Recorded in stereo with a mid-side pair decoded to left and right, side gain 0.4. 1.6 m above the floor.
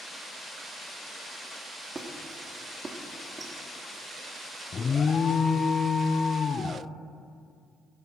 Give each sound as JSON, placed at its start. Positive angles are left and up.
{"t": 1.9, "sound": "a squeak", "azimuth_deg": -35, "distance_m": 2.0}
{"t": 4.7, "sound": "an alarm", "azimuth_deg": 50, "distance_m": 0.7}